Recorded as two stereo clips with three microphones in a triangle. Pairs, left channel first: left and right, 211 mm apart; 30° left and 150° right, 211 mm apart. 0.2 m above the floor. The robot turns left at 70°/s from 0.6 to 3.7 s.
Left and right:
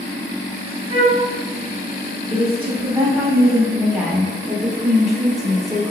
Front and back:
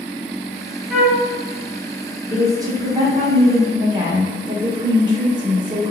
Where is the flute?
65° right, 1.0 m; by 1.2 s 90° right, 1.0 m.